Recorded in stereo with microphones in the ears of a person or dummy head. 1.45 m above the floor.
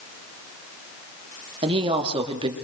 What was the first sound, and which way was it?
A woman speaking, 30° right (ahead or behind).